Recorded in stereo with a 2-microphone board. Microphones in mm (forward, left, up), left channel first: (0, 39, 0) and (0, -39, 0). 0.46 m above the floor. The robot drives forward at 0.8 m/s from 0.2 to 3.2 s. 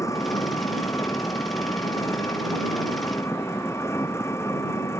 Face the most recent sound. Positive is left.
turn(degrees=35)  # may be behind; listen again after turning